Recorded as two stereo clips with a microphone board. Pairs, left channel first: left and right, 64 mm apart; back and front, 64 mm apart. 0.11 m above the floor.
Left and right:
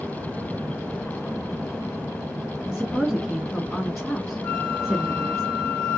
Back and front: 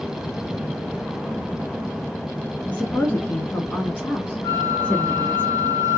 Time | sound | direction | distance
2.7 | a woman speaking | 175° right | 1.1 m
4.4 | a flute | 160° left | 0.9 m